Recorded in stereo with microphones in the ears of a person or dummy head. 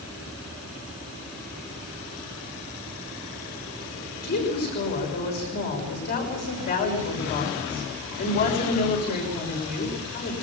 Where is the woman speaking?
50° left (ahead or behind), 6.5 m.